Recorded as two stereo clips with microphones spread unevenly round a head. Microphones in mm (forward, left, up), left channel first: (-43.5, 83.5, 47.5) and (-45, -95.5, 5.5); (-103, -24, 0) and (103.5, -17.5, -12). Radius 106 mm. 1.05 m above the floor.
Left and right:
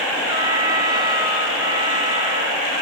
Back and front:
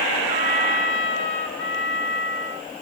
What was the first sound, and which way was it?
A trumpet, 150° right.